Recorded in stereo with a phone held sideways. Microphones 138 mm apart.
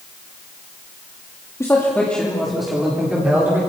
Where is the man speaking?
20° left (ahead or behind), 2.5 m; by 3.6 s 15° right (ahead or behind), 4.5 m.